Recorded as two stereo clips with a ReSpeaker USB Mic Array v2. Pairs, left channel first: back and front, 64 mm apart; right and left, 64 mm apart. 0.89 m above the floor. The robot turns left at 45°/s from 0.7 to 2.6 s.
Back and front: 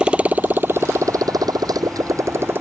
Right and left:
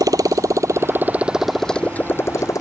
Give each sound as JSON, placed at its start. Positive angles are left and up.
{"t": 0.0, "sound": "a motorcycle", "azimuth_deg": 75}